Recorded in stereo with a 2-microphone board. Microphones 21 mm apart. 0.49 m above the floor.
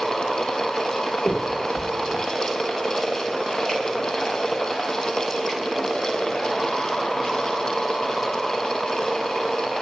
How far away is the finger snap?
About 6.5 m.